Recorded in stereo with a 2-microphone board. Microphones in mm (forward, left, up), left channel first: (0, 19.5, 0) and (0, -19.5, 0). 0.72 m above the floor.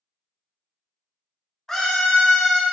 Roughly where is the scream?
Centre.